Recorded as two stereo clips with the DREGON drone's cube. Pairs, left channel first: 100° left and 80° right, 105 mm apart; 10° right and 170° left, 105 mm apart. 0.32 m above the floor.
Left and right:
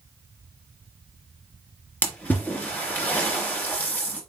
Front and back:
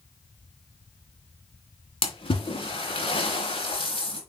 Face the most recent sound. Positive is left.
turn(degrees=25)